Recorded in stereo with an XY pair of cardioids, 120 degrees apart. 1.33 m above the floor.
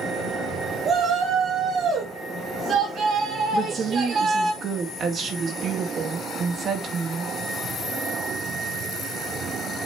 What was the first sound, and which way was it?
A shout, 50° right.